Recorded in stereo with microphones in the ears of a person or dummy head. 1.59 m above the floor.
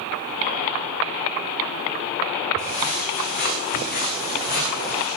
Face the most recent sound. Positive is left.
turn(degrees=60)  # may be behind; listen again after turning